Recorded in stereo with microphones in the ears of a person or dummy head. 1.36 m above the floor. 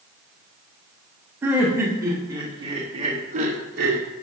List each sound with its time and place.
1.4 s laughter: 20° right (ahead or behind), 2.0 m; by 4.1 s 65° right (ahead or behind), 1.3 m